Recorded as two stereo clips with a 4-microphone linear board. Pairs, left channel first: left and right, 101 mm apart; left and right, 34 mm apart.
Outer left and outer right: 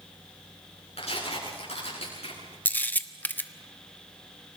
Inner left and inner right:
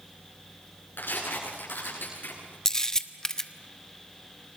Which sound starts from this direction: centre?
A camera shutter, at 2.6 s.